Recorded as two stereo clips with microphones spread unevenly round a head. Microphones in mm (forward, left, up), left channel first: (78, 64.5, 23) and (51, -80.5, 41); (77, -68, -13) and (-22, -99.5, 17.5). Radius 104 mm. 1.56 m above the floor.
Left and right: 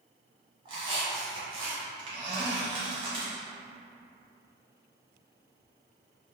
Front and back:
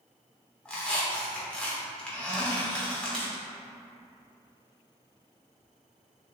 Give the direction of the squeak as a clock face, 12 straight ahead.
3 o'clock.